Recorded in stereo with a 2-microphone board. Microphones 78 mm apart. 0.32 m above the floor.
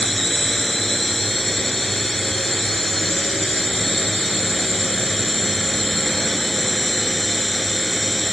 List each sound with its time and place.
0.0 s a drone: 5° left (ahead or behind)